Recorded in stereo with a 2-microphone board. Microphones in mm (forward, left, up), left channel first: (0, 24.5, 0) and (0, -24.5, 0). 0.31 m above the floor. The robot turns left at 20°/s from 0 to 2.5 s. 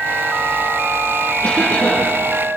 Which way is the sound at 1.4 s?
35° left (ahead or behind).